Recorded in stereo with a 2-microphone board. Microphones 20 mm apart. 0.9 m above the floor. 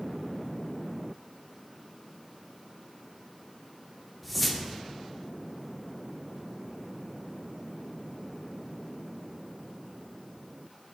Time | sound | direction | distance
4.2 | a whoosh | 5° right (ahead or behind) | 0.6 m